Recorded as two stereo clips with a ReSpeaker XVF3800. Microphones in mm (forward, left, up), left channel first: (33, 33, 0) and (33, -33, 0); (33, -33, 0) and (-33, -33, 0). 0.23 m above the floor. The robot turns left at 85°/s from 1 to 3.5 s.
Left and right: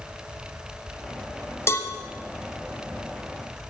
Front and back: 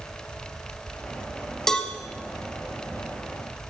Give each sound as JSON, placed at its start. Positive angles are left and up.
{"t": 1.7, "sound": "a cowbell", "azimuth_deg": 80, "distance_m": 1.0}